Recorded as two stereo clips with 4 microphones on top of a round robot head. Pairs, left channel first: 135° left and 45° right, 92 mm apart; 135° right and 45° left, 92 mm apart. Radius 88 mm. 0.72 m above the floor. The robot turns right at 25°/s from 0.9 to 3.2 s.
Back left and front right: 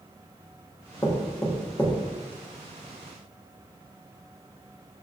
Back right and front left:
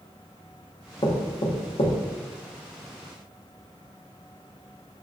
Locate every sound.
1.0 s knocking: 170° right, 0.7 m; by 2.0 s 145° right, 0.7 m